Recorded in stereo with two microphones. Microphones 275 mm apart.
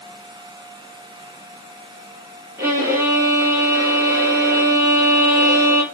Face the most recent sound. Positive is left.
turn(degrees=-10)  # may be behind; listen again after turning